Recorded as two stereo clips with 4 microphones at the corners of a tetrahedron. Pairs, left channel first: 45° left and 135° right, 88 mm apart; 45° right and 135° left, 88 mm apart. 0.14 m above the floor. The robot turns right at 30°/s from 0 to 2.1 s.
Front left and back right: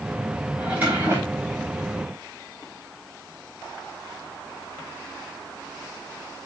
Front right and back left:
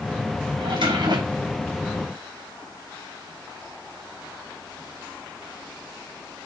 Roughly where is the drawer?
Behind left.